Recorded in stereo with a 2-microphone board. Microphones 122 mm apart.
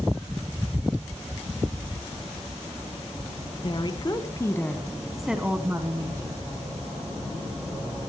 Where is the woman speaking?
45° left (ahead or behind), 1.6 m; by 6.4 s 30° right (ahead or behind), 1.9 m.